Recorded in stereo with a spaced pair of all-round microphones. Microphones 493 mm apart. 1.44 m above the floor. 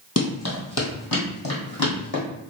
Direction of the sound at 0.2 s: 30° left (ahead or behind).